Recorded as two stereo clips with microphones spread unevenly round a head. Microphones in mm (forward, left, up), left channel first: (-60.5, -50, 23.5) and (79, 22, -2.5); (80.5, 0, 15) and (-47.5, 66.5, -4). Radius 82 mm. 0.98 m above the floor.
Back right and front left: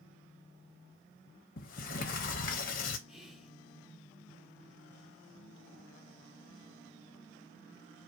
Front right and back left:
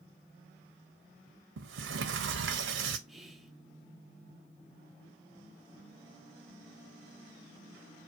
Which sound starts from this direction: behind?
A sliding door, at 1.6 s.